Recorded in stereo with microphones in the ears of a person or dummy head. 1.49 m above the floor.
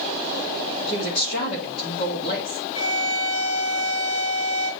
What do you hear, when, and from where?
0.9 s a woman speaking: 55° left (ahead or behind), 1.8 m
2.8 s a violin: 80° left, 1.3 m